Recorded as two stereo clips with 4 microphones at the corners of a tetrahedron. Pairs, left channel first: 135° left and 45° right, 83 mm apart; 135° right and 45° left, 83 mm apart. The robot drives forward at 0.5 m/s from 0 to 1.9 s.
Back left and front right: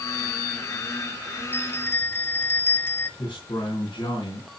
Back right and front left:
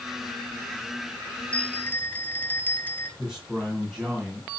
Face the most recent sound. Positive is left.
turn(degrees=130)